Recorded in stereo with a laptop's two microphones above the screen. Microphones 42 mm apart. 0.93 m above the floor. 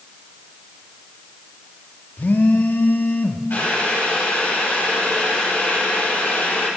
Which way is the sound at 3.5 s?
60° left (ahead or behind).